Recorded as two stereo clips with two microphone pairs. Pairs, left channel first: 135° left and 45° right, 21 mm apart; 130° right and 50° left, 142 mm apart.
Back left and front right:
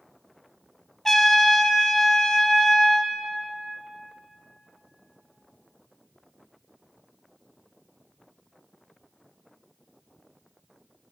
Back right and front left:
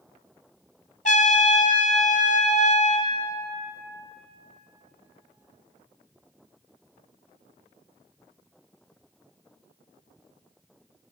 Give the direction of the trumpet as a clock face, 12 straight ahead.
5 o'clock.